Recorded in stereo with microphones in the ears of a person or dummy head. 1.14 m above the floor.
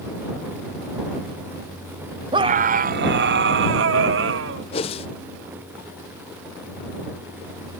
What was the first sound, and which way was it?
A scream, 25° right (ahead or behind).